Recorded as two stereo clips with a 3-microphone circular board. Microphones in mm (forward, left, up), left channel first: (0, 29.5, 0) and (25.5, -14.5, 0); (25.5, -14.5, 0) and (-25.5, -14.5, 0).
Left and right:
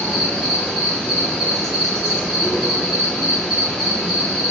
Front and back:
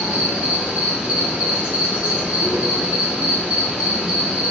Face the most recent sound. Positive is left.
turn(degrees=-165)